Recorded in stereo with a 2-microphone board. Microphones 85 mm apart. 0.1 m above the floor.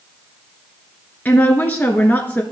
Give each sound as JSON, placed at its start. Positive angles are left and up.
{"t": 1.2, "sound": "a woman speaking", "side_deg": 20, "distance_m": 1.1}